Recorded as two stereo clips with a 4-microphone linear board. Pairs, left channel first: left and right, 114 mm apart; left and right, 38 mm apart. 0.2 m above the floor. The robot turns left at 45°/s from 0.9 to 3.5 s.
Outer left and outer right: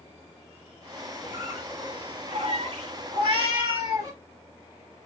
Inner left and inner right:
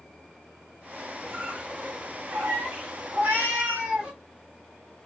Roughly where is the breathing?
I don't hear breathing.